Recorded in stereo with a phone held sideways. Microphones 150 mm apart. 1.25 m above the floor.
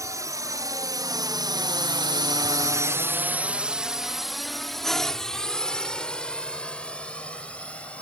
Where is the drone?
20° right (ahead or behind); by 8.0 s 5° left (ahead or behind).